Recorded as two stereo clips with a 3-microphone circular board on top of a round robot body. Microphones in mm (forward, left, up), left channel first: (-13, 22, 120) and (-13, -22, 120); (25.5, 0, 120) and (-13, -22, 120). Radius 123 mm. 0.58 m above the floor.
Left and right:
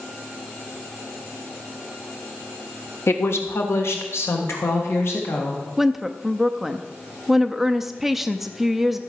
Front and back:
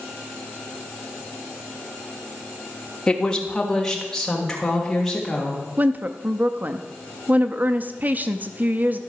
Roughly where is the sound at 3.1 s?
Left.